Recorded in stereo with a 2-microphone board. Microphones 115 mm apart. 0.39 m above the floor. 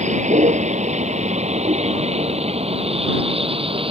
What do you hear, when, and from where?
0.0 s a vehicle: 85° right; by 3.9 s 50° right (ahead or behind)